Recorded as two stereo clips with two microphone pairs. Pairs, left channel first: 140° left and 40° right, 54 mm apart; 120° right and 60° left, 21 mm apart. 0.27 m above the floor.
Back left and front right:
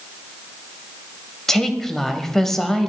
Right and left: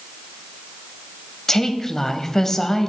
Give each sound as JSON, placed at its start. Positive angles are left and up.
{"t": 1.5, "sound": "a woman speaking", "azimuth_deg": -150, "distance_m": 1.0}